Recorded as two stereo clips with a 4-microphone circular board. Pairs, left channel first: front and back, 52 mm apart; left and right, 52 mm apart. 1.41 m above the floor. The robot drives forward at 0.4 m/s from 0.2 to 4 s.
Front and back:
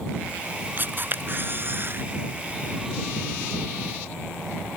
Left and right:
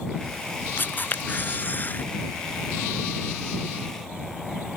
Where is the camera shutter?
135° left; by 2.0 s 140° left.